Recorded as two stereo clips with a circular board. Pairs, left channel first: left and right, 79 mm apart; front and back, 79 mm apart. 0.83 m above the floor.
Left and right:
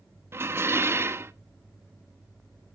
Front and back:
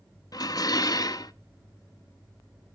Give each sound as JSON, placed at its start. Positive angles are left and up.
{"t": 0.3, "sound": "dishes clattering", "azimuth_deg": -35, "distance_m": 0.5}